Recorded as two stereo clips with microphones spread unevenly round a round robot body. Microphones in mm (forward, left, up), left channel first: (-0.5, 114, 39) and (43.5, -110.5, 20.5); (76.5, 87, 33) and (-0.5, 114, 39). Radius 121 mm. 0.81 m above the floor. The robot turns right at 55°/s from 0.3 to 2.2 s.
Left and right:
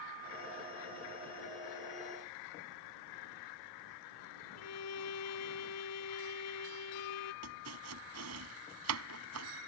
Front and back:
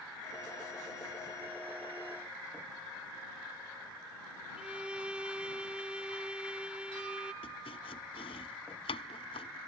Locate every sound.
4.6 s a violin: 85° left
7.4 s chopping: 55° right